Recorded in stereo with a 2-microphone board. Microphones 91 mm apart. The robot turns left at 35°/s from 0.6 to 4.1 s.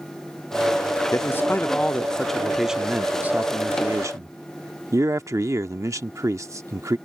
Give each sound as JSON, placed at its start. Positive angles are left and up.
{"t": 1.1, "sound": "a man speaking", "azimuth_deg": 45}